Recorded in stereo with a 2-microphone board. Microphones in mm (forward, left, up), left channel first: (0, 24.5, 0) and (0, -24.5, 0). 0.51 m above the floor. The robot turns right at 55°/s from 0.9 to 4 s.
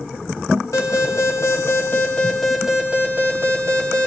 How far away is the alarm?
About 2.5 m.